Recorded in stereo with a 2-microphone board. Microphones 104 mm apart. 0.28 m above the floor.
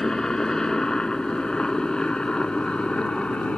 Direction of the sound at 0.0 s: 5° left (ahead or behind).